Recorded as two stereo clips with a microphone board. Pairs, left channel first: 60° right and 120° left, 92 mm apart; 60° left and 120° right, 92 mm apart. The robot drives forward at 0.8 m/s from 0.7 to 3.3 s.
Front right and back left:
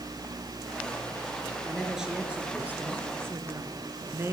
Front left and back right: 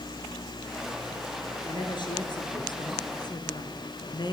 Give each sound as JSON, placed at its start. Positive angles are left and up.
{"t": 1.7, "sound": "a woman speaking", "azimuth_deg": 35, "distance_m": 2.5}